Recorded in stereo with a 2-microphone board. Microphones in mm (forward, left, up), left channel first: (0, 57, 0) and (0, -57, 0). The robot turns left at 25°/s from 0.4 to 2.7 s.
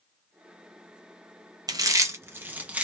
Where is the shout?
I don't hear a shout.